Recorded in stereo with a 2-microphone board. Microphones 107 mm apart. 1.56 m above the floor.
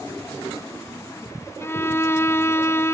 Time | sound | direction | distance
1.6 | a violin | 25° left (ahead or behind) | 0.7 m